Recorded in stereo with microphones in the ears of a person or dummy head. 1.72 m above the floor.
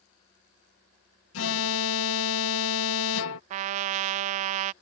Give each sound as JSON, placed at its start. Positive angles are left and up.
{"t": 1.3, "sound": "an alarm", "side_deg": 75}
{"t": 3.5, "sound": "a trumpet", "side_deg": -35}